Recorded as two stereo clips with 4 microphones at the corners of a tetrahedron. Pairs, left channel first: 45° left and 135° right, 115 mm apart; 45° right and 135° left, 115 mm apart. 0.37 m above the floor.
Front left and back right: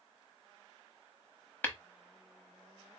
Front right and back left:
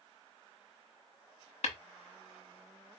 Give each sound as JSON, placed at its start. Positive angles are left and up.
{"t": 1.6, "sound": "tapping", "azimuth_deg": -30, "distance_m": 0.9}